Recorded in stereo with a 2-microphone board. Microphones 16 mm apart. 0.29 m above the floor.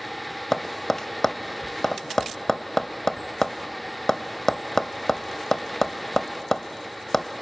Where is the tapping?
25° left (ahead or behind), 0.7 m.